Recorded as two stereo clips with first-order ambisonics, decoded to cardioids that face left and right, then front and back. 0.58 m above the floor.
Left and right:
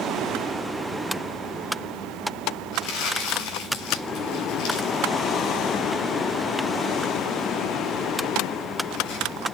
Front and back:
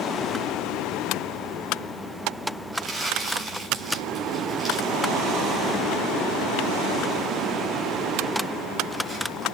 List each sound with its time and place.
2.7 s crumpling: 95° left, 5.5 m